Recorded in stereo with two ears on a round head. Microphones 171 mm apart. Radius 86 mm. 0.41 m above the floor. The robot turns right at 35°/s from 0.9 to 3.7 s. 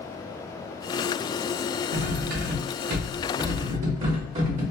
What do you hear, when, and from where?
1.9 s cutlery clinking: 115° right, 0.8 m; by 4.6 s 50° right, 0.8 m